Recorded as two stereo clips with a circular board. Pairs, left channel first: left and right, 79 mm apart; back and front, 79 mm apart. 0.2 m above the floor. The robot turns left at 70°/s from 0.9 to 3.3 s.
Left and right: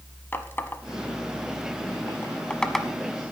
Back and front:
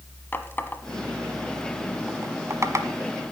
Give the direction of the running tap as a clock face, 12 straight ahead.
8 o'clock.